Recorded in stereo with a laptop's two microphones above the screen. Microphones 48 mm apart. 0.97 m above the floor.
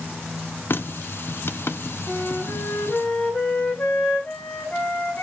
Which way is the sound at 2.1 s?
40° left (ahead or behind).